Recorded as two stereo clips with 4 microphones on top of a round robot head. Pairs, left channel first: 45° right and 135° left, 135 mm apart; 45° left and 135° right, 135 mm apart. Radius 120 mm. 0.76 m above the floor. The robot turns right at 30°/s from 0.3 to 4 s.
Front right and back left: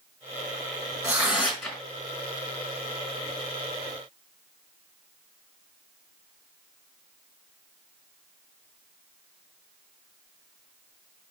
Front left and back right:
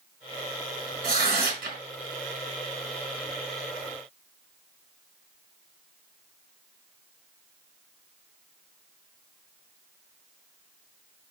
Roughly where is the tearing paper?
Behind right.